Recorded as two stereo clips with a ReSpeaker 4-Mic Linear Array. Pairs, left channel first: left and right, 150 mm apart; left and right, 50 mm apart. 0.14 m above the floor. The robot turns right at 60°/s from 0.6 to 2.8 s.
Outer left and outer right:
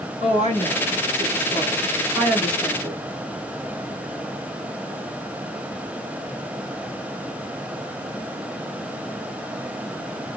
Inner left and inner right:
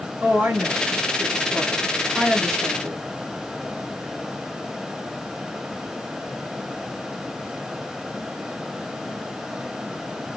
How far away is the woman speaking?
About 1.6 m.